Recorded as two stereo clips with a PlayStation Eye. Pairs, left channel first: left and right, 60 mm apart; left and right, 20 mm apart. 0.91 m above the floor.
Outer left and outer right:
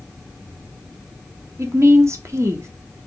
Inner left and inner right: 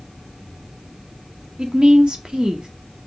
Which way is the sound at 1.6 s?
50° right (ahead or behind).